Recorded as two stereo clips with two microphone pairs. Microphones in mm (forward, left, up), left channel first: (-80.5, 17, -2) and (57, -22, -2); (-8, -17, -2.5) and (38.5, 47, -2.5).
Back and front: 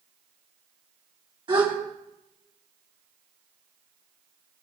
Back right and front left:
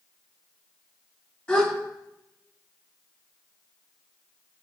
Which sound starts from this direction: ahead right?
A gasp, at 1.5 s.